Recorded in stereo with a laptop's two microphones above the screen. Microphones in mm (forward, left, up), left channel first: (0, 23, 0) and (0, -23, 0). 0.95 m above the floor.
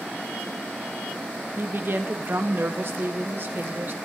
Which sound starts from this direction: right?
A woman speaking, at 1.6 s.